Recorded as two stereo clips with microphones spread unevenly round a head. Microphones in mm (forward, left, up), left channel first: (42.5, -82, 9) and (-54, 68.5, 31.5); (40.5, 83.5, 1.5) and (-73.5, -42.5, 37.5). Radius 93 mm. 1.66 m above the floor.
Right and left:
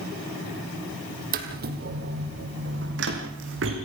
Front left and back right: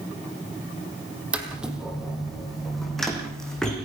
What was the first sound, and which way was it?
Footsteps, 150° left.